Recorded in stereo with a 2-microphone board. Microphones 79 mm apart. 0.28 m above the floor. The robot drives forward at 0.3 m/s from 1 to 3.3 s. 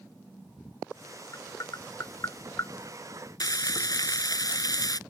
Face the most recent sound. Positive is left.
turn(degrees=55)  # may be behind; listen again after turning